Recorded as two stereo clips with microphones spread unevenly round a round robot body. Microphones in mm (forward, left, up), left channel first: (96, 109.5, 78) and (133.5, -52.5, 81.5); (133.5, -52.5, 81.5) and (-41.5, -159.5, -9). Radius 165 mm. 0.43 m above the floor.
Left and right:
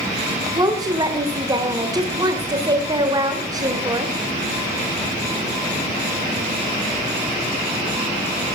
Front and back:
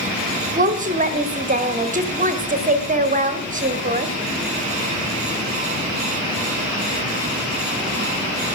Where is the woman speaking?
145° right, 1.8 m.